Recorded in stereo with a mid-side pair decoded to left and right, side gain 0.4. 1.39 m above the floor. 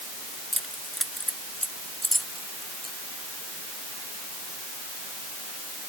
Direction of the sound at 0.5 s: Straight ahead.